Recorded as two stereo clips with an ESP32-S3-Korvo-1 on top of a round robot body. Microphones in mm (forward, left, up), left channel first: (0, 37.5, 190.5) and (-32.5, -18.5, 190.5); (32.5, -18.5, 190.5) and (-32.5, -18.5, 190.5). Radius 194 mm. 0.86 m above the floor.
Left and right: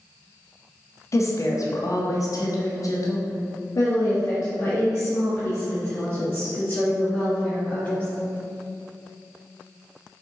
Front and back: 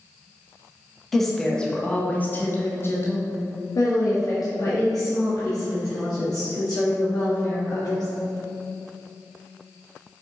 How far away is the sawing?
No sawing in this recording.